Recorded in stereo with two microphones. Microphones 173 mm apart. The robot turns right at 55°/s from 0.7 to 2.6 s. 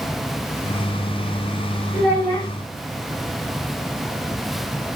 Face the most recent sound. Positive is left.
turn(degrees=50)